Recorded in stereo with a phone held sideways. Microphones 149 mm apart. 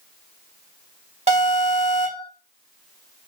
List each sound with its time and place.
1.3 s an alarm: 45° right (ahead or behind), 1.3 m